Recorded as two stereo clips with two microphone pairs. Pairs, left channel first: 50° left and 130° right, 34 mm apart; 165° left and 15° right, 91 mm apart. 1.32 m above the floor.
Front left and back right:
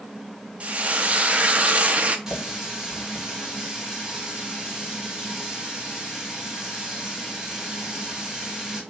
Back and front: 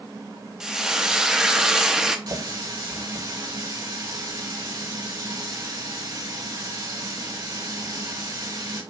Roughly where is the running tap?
Ahead right.